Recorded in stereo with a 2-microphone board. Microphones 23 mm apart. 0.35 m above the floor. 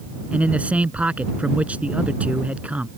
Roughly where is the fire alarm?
No fire alarm in this recording.